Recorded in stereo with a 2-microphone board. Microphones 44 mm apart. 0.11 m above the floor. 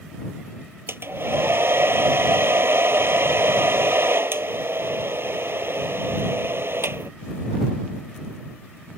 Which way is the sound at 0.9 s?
60° right (ahead or behind).